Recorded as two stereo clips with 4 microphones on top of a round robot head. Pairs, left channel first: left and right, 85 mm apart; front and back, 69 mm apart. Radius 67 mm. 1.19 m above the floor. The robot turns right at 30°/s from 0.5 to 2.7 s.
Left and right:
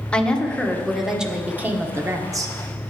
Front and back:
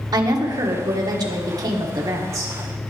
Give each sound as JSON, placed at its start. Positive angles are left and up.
{"t": 0.1, "sound": "a woman speaking", "azimuth_deg": 170, "distance_m": 1.4}